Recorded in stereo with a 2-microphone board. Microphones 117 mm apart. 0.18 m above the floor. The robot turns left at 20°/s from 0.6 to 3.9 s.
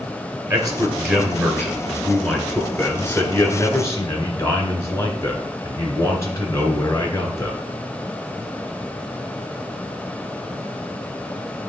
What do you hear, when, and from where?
0.5 s a man speaking: 145° right, 1.8 m; by 7.6 s 150° left, 1.8 m